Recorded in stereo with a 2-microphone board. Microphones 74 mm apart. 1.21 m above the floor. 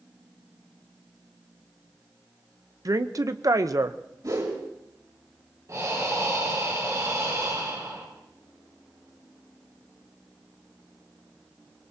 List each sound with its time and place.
2.9 s a woman speaking: 55° right (ahead or behind), 0.8 m
4.2 s a whoosh: 60° right (ahead or behind), 4 m
5.7 s breathing: 50° right (ahead or behind), 3.5 m